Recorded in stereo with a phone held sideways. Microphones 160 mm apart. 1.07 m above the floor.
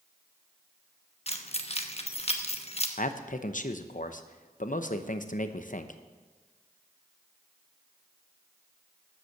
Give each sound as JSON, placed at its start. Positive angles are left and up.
{"t": 1.3, "sound": "keys jangling", "side_deg": 40, "distance_m": 1.0}
{"t": 3.0, "sound": "a man speaking", "side_deg": 55, "distance_m": 0.8}